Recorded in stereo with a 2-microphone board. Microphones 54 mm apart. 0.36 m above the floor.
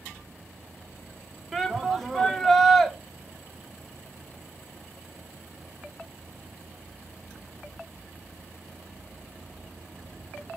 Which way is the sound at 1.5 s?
5° left (ahead or behind).